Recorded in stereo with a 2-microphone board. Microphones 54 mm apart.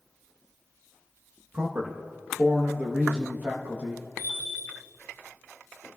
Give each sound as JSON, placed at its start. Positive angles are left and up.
{"t": 1.5, "sound": "a man speaking", "side_deg": -30, "distance_m": 1.0}
{"t": 4.2, "sound": "a bell", "side_deg": -45, "distance_m": 3.0}